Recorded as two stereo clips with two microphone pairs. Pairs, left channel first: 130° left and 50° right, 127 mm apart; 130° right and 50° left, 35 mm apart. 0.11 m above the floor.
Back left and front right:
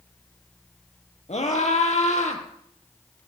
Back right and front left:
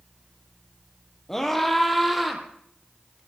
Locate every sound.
1.3 s a scream: 150° left, 3.5 m; by 2.4 s 135° left, 3.5 m